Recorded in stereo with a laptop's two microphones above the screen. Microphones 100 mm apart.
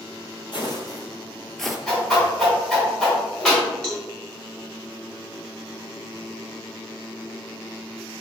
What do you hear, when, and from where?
0.5 s footsteps: 50° left (ahead or behind), 1.5 m; by 1.8 s 5° right (ahead or behind), 1.2 m
1.9 s a whoosh: 5° left (ahead or behind), 2.5 m
3.8 s a cowbell: 5° left (ahead or behind), 1.6 m